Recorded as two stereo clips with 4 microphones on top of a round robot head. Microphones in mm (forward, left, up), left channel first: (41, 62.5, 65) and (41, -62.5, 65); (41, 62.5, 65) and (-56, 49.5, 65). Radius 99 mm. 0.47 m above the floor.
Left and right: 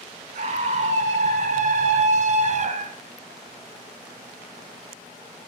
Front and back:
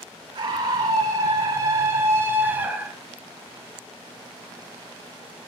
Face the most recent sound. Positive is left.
turn(degrees=-90)